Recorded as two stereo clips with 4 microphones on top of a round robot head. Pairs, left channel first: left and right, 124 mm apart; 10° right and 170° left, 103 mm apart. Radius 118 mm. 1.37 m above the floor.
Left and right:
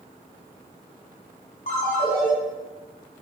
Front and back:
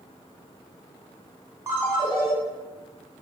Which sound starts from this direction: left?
A ringtone, at 1.7 s.